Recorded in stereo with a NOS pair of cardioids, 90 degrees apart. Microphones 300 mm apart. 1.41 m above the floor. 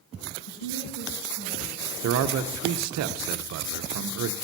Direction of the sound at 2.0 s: 65° right.